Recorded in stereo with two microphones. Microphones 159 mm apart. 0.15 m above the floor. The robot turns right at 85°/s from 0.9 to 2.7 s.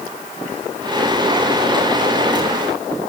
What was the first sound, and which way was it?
Only background noise.